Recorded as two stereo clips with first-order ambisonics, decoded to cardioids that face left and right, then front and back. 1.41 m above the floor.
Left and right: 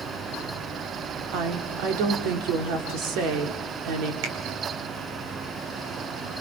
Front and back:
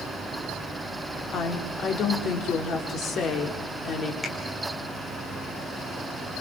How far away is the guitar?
I don't hear a guitar.